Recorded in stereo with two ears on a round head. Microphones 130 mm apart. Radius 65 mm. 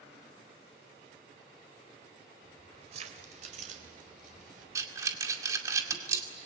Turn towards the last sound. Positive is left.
turn(degrees=-20)  # may be behind; listen again after turning